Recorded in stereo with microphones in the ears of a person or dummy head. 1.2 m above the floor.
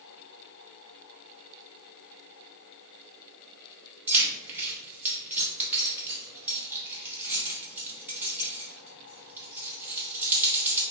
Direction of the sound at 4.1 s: 10° right (ahead or behind).